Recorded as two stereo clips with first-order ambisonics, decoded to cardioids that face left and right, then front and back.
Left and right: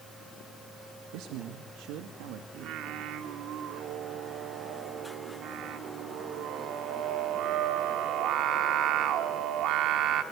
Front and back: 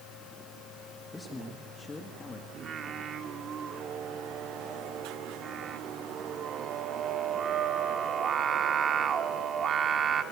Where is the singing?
120° right, 1.4 m.